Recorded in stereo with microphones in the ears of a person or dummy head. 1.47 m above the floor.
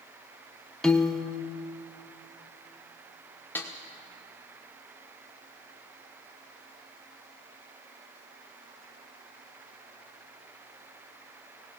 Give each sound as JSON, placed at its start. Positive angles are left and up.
{"t": 0.8, "sound": "a piano", "side_deg": 0, "distance_m": 0.6}
{"t": 3.5, "sound": "a snare drum", "side_deg": 10, "distance_m": 0.8}